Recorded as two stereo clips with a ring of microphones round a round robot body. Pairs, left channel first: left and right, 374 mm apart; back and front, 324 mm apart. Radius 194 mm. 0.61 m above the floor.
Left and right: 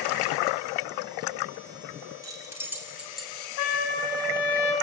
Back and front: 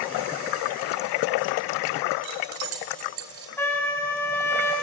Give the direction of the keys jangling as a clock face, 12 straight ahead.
12 o'clock.